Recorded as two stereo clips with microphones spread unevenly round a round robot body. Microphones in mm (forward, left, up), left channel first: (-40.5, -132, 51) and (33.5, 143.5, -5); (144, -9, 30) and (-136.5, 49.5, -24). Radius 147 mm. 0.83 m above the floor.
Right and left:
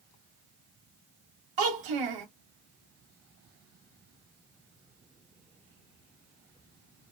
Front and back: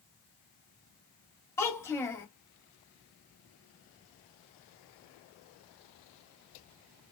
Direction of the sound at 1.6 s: 70° left.